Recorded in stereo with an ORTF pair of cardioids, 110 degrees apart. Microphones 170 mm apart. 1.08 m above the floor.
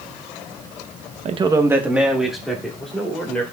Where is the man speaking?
40° right, 0.7 m; by 3.4 s 5° left, 4 m.